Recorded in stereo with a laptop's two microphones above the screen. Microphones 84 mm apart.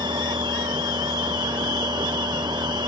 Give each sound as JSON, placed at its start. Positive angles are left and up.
{"t": 0.0, "sound": "a machine running", "side_deg": -65}